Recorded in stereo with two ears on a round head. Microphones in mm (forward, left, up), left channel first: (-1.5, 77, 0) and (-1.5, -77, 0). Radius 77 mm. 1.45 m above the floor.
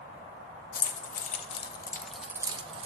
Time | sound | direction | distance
0.7 | keys jangling | 55° left (ahead or behind) | 1.0 m